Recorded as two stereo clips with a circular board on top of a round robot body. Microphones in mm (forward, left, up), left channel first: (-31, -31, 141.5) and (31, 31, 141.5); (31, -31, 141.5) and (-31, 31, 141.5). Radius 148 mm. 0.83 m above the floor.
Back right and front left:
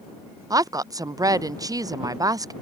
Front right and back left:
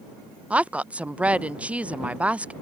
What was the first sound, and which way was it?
A woman speaking, 65° left.